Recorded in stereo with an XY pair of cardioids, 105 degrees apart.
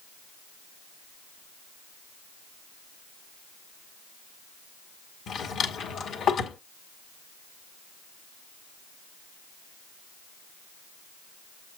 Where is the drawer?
65° left, 1.7 m.